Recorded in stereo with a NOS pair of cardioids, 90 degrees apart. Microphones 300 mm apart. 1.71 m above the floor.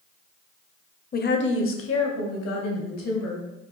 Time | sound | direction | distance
1.1 | a woman speaking | 30° left | 0.7 m